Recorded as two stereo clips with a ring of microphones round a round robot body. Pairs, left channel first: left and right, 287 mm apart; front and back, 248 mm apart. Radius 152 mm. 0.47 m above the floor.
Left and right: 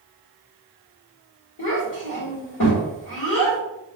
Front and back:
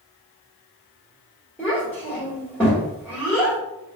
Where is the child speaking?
85° left, 1.2 m.